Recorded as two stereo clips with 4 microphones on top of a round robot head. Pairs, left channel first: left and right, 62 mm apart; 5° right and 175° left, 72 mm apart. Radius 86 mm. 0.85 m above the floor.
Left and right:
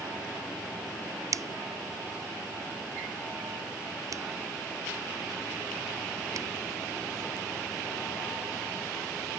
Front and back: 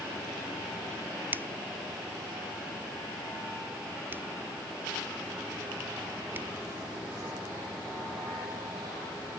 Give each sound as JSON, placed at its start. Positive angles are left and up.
{"t": 1.3, "sound": "a finger snap", "azimuth_deg": -120}